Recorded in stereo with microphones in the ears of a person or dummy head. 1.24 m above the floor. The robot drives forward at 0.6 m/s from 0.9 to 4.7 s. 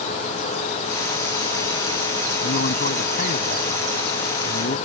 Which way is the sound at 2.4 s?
40° left (ahead or behind).